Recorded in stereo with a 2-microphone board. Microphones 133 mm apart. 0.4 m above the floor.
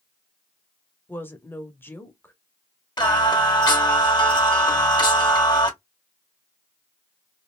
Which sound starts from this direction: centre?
A woman speaking, at 1.1 s.